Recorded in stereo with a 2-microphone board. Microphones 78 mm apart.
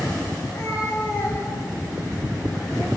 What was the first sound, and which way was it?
A cat meowing, 35° left (ahead or behind).